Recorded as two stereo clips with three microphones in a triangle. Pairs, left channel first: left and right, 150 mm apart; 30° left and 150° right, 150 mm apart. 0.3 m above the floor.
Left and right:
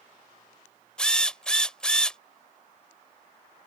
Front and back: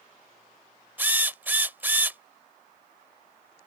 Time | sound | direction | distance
1.0 | a drill | 160° left | ?